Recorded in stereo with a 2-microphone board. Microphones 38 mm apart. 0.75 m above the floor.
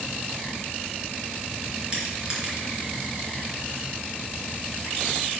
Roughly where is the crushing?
Right.